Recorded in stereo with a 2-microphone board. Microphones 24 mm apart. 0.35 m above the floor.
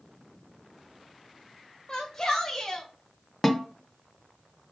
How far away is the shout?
About 1.6 m.